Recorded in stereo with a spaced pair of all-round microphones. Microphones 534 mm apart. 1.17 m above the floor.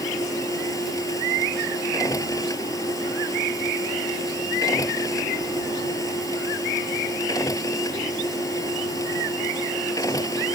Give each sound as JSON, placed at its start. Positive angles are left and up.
{"t": 0.0, "sound": "a machine running", "side_deg": 5}